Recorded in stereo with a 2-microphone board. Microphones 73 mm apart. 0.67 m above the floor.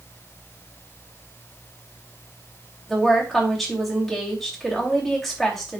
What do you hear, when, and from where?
2.9 s a woman speaking: centre (ahead or behind), 2.5 m